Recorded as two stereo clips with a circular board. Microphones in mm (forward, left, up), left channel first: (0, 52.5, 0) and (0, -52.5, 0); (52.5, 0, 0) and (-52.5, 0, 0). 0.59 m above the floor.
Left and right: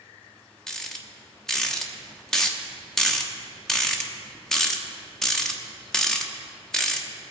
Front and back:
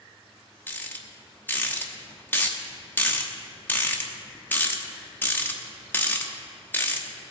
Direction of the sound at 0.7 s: 15° left.